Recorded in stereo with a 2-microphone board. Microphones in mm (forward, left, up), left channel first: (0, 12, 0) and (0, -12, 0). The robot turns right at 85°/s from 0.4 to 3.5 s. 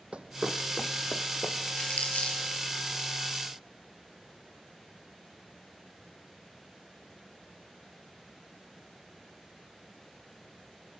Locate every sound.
0.1 s running footsteps: 60° right (ahead or behind), 0.8 m; by 1.6 s 55° left (ahead or behind), 1.3 m
1.8 s crumpling: 45° left (ahead or behind), 4.5 m; by 2.4 s 70° left (ahead or behind), 4.5 m